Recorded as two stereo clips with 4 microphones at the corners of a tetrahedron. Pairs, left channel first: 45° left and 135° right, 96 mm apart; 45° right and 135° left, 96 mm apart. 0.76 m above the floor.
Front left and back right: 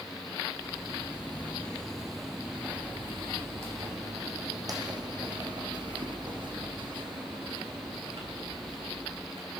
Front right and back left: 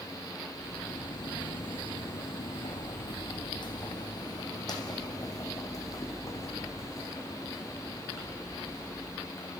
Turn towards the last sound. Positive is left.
turn(degrees=-110)